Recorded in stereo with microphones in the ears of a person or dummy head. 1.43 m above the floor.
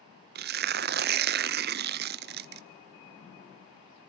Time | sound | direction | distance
0.3 | tearing paper | 50° right (ahead or behind) | 0.6 m